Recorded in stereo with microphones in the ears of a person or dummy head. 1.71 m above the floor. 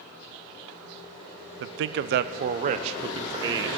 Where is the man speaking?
55° right (ahead or behind), 0.6 m; by 3.7 s 15° right (ahead or behind), 1.1 m.